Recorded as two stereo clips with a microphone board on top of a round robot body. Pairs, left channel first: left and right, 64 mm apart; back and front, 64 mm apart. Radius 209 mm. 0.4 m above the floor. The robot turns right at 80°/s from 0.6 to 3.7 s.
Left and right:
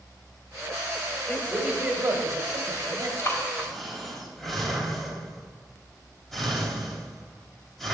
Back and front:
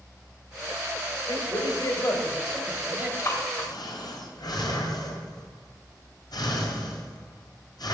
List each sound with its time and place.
1.3 s a woman speaking: 165° left, 2.5 m; by 3.1 s 50° right, 2.5 m
3.2 s breathing: 135° left, 3 m; by 7.9 s 175° left, 3 m